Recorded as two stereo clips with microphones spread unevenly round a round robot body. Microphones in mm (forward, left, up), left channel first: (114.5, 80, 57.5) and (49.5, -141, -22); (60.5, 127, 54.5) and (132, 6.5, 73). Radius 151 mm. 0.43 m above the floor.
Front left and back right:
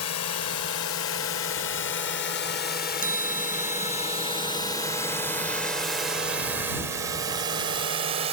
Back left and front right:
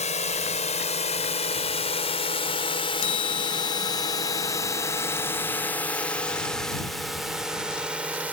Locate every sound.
0.0 s a drone: 110° left; by 8.3 s 140° right
3.0 s a chime: 170° left